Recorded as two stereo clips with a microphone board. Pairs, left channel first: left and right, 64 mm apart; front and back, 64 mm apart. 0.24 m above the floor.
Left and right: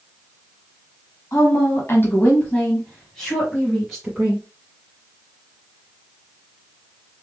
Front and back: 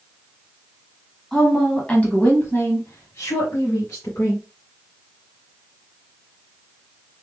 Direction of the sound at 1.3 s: 85° left.